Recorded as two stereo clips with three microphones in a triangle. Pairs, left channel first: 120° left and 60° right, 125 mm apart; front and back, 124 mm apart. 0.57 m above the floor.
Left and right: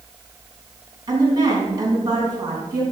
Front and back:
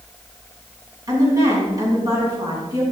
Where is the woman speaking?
120° right, 4.5 m.